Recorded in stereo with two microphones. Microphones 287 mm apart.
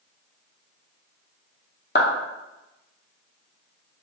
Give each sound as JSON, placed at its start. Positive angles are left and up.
{"t": 1.9, "sound": "a clap", "side_deg": 40, "distance_m": 0.6}